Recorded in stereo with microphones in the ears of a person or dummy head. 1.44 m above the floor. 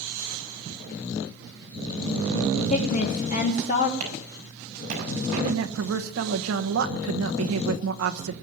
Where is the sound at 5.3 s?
80° right, 1.3 m.